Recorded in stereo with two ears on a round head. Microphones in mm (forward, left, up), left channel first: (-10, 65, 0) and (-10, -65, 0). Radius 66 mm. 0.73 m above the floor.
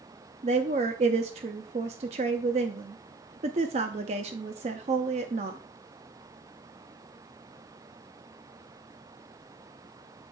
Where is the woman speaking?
50° right (ahead or behind), 0.6 m.